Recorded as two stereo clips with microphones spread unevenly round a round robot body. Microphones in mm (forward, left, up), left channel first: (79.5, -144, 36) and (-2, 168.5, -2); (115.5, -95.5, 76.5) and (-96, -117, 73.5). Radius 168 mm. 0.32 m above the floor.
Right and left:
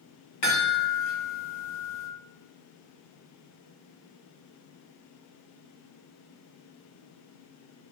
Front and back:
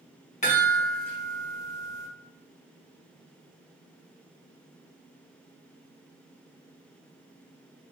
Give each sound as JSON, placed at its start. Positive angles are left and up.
{"t": 0.4, "sound": "a chime", "azimuth_deg": -50, "distance_m": 1.8}